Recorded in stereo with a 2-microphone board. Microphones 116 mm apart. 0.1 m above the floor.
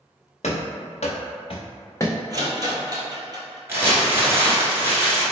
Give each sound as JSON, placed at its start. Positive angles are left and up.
{"t": 0.4, "sound": "running footsteps", "side_deg": 85, "distance_m": 1.1}
{"t": 2.3, "sound": "a rattle", "side_deg": -35, "distance_m": 0.8}
{"t": 3.7, "sound": "crumpling", "side_deg": -20, "distance_m": 1.2}